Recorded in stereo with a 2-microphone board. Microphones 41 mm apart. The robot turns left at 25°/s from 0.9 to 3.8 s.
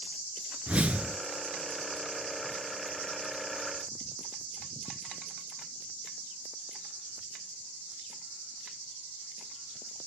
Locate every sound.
0.7 s a whoosh: 35° right (ahead or behind), 0.8 m; by 1.2 s 30° right (ahead or behind), 0.8 m